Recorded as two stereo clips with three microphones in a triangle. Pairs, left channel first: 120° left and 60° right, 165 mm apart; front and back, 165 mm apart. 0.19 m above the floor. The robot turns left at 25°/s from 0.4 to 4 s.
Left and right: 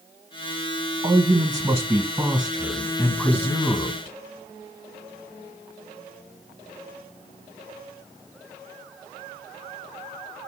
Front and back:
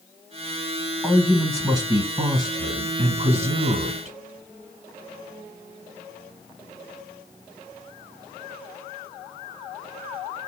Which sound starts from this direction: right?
A man speaking, at 1.0 s.